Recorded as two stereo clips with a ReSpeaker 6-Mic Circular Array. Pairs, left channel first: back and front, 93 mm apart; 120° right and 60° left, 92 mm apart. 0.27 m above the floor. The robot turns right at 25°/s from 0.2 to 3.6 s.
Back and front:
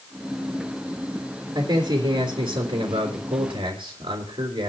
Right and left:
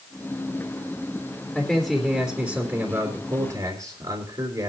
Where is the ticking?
No ticking in this recording.